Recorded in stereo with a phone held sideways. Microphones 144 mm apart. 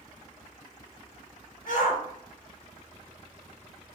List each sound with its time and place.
1.7 s a shout: 85° left, 4.5 m; by 4.0 s 75° left (ahead or behind), 4.5 m